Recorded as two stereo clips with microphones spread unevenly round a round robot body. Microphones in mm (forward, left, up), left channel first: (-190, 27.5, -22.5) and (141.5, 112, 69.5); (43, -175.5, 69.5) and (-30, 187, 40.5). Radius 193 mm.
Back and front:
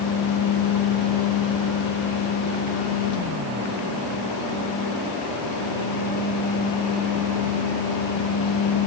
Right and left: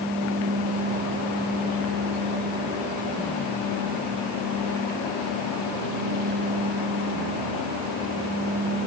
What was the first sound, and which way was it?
Only background noise.